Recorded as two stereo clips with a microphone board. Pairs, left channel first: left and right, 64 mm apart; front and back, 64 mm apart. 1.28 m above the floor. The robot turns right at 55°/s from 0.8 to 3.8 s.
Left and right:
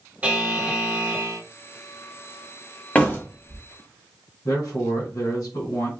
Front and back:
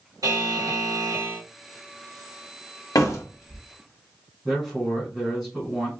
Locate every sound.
0.2 s a buzzer: 160° right, 1.3 m; by 1.4 s 120° right, 1.3 m
3.0 s a door slam: 20° left, 1.3 m; by 3.6 s 60° left, 1.3 m
4.5 s a man speaking: 80° left, 2.5 m